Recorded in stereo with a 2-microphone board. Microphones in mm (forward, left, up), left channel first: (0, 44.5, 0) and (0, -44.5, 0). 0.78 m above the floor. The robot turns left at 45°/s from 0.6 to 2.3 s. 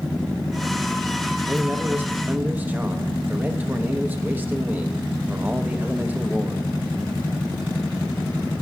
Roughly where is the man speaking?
Right.